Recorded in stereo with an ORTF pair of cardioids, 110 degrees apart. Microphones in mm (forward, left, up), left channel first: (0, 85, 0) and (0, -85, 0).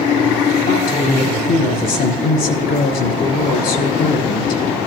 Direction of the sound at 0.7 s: 70° left.